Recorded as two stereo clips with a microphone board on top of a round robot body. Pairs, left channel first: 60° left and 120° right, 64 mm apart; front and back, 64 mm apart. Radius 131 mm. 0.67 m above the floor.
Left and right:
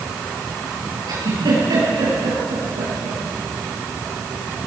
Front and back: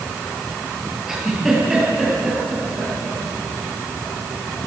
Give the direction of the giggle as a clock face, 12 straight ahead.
3 o'clock.